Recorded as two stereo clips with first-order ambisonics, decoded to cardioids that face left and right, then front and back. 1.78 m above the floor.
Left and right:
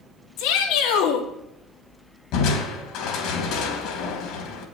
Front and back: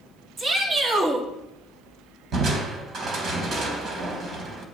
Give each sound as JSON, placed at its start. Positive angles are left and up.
{"t": 0.4, "sound": "a shout", "azimuth_deg": 115, "distance_m": 4.0}
{"t": 2.3, "sound": "crushing", "azimuth_deg": 125, "distance_m": 3.5}